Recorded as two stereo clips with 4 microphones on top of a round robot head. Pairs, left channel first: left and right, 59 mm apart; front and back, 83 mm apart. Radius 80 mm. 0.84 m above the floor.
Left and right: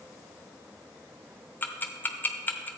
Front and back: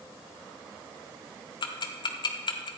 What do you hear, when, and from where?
1.6 s ticking: 30° left, 0.9 m